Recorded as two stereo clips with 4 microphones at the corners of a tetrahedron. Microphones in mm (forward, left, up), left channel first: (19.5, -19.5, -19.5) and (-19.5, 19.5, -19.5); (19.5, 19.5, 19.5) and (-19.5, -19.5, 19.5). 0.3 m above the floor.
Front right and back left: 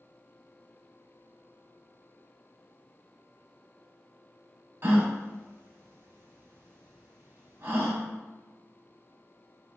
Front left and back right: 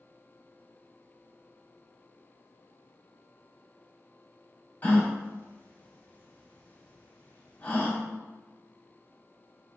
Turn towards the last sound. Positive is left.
turn(degrees=100)